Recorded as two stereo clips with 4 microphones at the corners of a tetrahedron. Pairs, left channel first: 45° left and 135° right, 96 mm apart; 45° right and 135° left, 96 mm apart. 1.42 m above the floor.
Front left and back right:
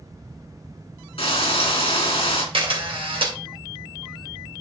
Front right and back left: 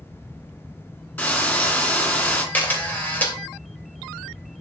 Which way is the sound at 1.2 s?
25° left.